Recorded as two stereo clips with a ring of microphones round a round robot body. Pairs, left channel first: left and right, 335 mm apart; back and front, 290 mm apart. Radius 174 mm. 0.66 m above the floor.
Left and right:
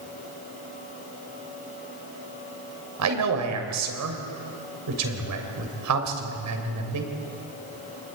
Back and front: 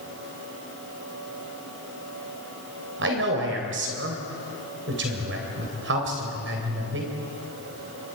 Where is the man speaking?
55° right, 3 m.